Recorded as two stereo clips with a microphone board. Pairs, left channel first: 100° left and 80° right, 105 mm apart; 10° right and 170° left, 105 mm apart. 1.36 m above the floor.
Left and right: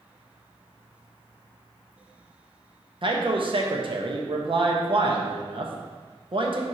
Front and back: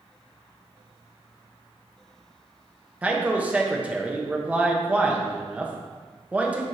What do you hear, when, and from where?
3.0 s a man speaking: 115° right, 1.0 m